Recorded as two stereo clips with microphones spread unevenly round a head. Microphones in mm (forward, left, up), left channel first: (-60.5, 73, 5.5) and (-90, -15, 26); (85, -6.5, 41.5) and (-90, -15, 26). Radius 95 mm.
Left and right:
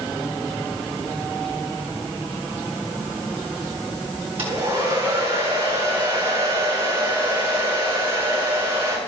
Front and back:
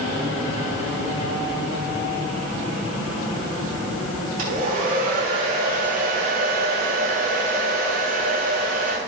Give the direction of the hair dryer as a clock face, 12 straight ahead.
4 o'clock.